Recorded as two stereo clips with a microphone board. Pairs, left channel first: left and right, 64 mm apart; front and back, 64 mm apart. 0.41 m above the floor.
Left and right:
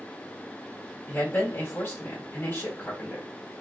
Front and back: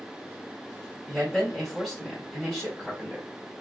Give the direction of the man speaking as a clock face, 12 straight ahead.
9 o'clock.